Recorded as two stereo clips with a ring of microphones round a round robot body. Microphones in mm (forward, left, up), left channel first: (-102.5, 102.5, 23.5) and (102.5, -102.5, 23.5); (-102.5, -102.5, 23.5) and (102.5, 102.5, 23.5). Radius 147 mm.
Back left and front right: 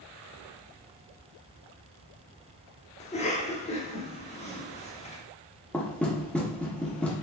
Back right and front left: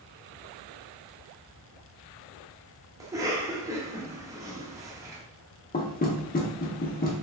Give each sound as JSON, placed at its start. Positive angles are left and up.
{"t": 3.0, "sound": "a cough", "azimuth_deg": 110, "distance_m": 0.8}
{"t": 5.7, "sound": "knocking", "azimuth_deg": -145, "distance_m": 0.8}